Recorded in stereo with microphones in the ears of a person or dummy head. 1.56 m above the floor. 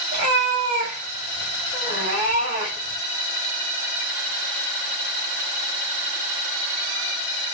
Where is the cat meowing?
25° right (ahead or behind), 1.0 m.